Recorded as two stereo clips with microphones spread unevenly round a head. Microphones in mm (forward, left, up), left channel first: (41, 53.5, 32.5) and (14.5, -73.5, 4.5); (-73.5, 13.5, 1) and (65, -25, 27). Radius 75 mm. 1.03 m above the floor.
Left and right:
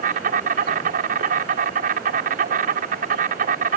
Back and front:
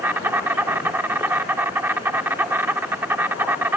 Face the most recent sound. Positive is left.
turn(degrees=-90)